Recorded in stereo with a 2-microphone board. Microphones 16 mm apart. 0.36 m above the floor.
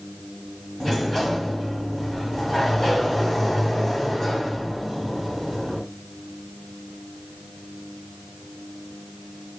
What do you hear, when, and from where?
0.8 s a sliding door: 15° left (ahead or behind), 2.0 m